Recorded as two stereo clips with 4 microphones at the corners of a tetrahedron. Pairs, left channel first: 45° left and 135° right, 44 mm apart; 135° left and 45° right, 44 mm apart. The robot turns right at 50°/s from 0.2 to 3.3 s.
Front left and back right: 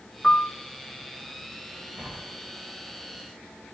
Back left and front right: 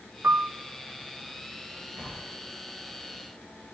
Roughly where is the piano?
Ahead right.